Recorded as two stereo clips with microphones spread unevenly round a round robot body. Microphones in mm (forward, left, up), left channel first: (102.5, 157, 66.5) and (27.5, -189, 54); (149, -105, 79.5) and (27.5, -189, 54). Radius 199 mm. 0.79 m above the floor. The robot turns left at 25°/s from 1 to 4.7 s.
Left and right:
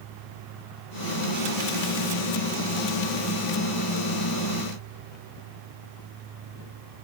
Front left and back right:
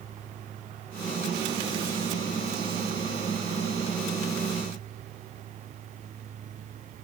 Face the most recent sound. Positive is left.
No sound to turn to.